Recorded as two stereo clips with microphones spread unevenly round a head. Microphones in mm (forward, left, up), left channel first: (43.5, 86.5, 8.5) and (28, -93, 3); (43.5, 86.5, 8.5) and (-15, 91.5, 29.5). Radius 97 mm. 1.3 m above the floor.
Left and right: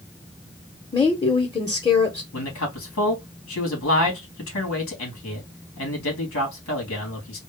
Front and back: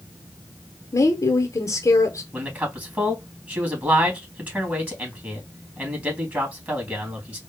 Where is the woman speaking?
15° left, 1.0 m.